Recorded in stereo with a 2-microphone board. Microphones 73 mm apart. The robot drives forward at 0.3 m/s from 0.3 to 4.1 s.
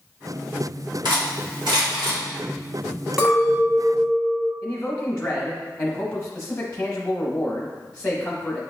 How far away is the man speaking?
About 0.7 m.